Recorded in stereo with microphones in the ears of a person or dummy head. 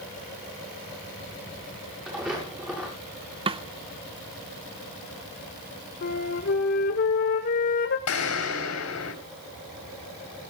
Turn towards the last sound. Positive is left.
turn(degrees=85)